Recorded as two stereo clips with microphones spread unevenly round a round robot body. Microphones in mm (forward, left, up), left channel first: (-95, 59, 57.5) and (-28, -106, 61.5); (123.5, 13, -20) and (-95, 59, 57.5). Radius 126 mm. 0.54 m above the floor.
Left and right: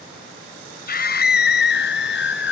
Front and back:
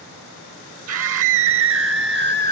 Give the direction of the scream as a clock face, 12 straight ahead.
7 o'clock.